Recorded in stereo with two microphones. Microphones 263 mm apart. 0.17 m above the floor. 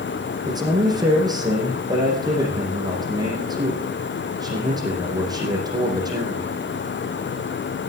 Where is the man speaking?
15° right (ahead or behind), 6.5 m.